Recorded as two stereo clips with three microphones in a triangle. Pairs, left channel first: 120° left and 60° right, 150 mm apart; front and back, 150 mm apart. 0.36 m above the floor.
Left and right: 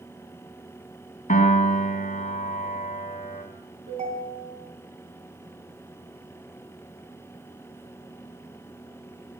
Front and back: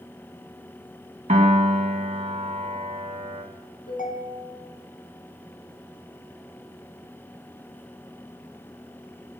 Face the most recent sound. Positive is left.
turn(degrees=-25)